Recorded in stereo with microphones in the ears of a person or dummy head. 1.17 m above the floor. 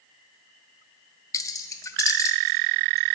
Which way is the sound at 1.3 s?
15° left (ahead or behind).